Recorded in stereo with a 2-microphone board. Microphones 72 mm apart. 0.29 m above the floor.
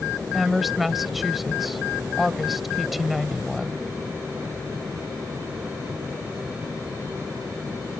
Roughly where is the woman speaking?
Centre.